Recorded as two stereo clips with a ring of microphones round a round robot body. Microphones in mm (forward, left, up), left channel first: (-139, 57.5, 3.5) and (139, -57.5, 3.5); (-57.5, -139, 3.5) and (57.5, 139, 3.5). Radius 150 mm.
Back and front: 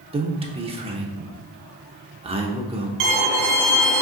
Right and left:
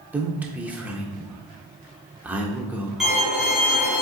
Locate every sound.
0.1 s a man speaking: 5° right, 0.8 m
3.0 s a violin: 20° right, 1.7 m